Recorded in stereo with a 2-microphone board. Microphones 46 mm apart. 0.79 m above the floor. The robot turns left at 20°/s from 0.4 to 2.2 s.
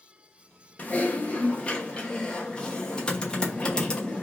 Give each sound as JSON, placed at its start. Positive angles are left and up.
{"t": 0.8, "sound": "typing on a keyboard", "side_deg": 30, "distance_m": 0.9}